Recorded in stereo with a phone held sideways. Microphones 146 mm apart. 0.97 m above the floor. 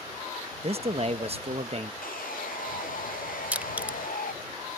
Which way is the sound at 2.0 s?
70° left (ahead or behind).